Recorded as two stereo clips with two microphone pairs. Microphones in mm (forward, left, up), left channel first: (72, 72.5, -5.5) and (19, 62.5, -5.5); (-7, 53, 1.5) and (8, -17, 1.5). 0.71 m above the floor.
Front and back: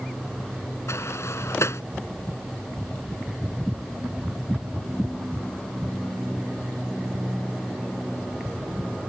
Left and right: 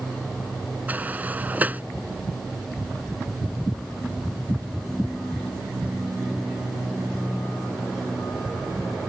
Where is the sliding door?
10° right.